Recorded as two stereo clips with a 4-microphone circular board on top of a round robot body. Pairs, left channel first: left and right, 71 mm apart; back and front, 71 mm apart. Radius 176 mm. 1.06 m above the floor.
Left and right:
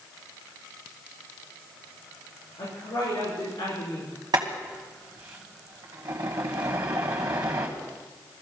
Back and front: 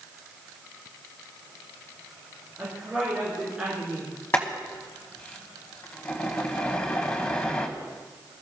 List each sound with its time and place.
2.6 s a woman speaking: 85° left, 6 m; by 4.1 s 70° left, 4.5 m
4.3 s boiling: 120° right, 1.2 m